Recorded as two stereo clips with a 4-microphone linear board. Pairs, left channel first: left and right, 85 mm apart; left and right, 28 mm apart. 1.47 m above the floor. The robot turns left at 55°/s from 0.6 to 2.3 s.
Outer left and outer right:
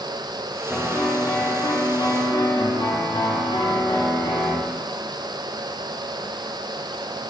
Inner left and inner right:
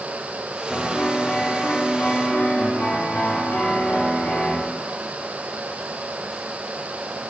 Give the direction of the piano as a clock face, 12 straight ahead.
6 o'clock.